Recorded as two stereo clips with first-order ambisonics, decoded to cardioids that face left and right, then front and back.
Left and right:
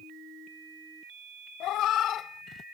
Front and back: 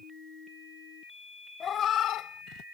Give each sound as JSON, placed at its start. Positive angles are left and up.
{"t": 1.6, "sound": "a cat meowing", "azimuth_deg": 60}